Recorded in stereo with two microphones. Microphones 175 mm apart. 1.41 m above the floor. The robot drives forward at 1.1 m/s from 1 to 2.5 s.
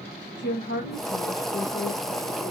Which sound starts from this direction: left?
A woman speaking, at 0.4 s.